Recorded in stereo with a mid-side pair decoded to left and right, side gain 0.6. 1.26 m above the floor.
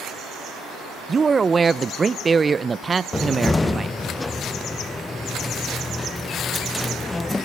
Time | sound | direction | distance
1.1 | a man speaking | 25° right | 0.7 m
3.1 | a cupboard door | 20° left | 0.5 m